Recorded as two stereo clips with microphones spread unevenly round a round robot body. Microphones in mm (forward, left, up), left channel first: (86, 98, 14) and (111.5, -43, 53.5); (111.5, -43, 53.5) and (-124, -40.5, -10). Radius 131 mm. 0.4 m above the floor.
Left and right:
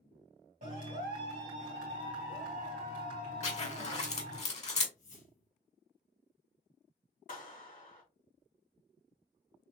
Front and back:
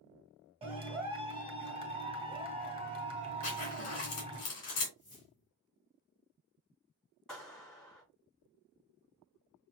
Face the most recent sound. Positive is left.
turn(degrees=90)